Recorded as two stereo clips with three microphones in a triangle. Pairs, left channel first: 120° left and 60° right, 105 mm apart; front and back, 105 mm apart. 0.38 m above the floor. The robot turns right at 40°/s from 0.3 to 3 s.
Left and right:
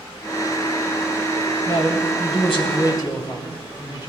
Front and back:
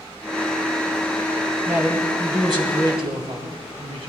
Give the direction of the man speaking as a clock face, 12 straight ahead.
8 o'clock.